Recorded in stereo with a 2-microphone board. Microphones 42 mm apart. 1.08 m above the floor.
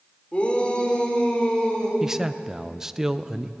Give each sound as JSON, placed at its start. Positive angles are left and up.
{"t": 0.3, "sound": "a shout", "side_deg": 30, "distance_m": 4.0}
{"t": 2.0, "sound": "a man speaking", "side_deg": -10, "distance_m": 0.6}